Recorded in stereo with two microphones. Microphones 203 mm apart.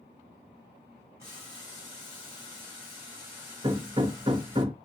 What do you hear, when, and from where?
1.2 s boiling: 15° right (ahead or behind), 4 m
3.6 s hammering: 25° right (ahead or behind), 0.8 m